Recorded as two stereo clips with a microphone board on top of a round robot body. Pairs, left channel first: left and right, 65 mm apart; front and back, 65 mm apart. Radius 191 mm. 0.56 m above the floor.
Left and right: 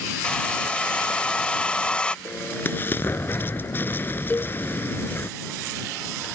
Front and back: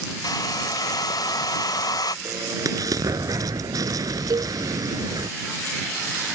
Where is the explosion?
150° left.